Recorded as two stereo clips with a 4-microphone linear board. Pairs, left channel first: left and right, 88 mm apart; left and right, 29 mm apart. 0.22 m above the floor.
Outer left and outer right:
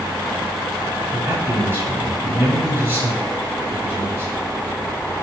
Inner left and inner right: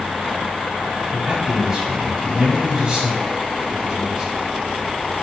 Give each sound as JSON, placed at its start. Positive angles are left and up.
{"t": 1.1, "sound": "a man speaking", "side_deg": -25, "distance_m": 1.6}